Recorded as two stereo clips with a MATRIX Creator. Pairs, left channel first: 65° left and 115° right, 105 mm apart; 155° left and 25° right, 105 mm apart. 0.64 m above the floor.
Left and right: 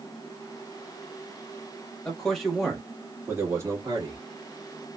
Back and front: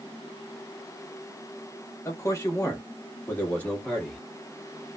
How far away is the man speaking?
About 1.2 m.